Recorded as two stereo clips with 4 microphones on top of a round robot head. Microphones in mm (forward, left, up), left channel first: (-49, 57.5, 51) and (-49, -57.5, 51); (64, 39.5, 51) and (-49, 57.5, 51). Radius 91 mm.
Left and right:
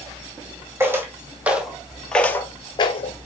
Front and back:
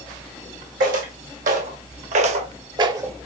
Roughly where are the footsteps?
Behind.